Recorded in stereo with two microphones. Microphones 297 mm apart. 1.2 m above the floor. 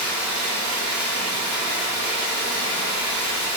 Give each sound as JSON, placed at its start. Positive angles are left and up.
{"t": 0.0, "sound": "running water", "side_deg": 80, "distance_m": 2.5}